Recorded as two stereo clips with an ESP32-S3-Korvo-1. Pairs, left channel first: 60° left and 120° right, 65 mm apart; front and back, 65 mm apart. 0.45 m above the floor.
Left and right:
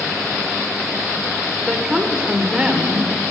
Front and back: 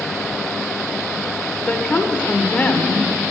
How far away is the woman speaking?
About 1.3 m.